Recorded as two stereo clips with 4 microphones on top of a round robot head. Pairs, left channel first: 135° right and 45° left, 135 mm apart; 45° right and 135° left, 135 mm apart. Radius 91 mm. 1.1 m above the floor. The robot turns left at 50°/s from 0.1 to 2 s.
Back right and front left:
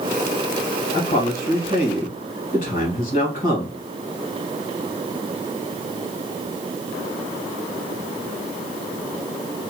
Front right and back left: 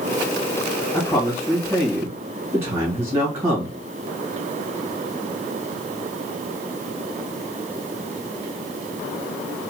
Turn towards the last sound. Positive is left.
turn(degrees=180)